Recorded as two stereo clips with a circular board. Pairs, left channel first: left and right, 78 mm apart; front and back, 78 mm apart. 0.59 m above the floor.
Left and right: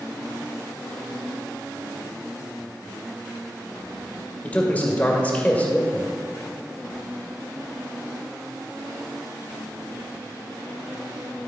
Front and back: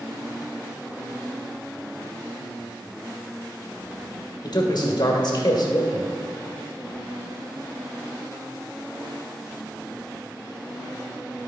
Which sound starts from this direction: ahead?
A man speaking, at 4.4 s.